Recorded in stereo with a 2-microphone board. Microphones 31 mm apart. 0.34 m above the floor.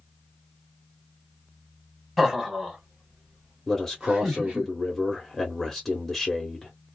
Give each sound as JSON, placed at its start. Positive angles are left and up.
{"t": 2.2, "sound": "laughter", "side_deg": 0, "distance_m": 1.2}
{"t": 3.7, "sound": "a man speaking", "side_deg": 10, "distance_m": 1.0}